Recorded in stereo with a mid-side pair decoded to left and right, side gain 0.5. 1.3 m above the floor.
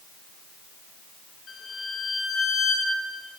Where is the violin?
50° left, 9.5 m.